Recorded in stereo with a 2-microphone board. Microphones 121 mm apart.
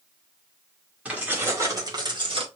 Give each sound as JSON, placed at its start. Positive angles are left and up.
{"t": 1.1, "sound": "keys jangling", "side_deg": -10, "distance_m": 2.0}